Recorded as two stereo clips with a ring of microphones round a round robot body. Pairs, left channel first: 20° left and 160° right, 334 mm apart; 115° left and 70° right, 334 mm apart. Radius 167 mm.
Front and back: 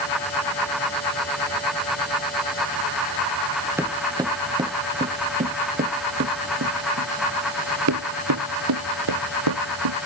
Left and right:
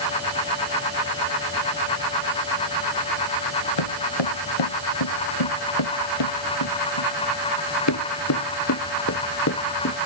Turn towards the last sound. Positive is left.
turn(degrees=170)